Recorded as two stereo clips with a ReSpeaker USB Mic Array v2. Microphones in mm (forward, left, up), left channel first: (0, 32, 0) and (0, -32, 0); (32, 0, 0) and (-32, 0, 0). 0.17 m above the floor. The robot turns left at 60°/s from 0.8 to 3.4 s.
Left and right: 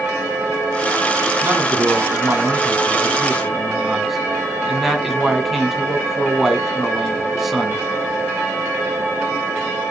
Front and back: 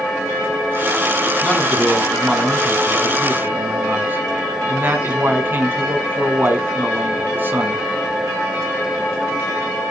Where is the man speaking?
55° right, 1.5 m; by 7.8 s 175° right, 1.5 m.